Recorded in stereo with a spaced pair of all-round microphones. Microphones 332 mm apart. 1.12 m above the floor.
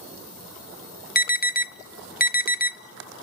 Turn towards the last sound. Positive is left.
turn(degrees=25)  # may be behind; listen again after turning